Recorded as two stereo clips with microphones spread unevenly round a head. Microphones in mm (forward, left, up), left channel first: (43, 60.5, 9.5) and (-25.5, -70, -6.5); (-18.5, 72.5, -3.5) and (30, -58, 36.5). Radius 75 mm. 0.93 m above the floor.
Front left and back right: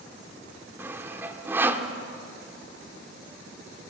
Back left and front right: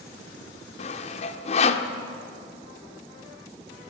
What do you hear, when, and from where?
0.8 s sawing: 165° left, 1.2 m